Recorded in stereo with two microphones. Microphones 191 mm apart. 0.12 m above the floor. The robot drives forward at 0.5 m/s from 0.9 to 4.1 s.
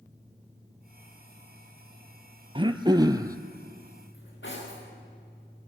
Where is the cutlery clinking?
75° left (ahead or behind), 8.5 m.